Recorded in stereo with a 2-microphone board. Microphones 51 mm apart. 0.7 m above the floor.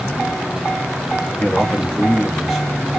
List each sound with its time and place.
1.4 s a man speaking: 25° left (ahead or behind), 0.9 m; by 2.7 s 5° right (ahead or behind), 1.1 m